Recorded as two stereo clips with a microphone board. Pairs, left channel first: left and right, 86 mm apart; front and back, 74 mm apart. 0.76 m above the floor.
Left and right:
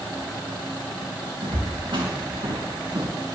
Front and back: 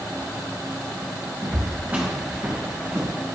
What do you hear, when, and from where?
1.4 s footsteps: 110° right, 4.5 m; by 3.1 s 105° right, 3.5 m